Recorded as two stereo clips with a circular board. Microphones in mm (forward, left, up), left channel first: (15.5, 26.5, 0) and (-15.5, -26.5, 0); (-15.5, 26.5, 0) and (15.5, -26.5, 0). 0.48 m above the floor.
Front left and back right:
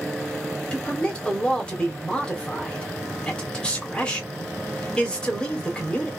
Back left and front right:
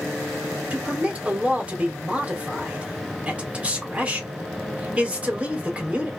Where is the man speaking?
5° right, 1.3 m.